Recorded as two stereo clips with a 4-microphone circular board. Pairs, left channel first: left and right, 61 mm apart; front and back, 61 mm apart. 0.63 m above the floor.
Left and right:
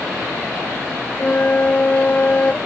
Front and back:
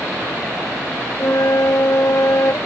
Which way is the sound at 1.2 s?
30° left.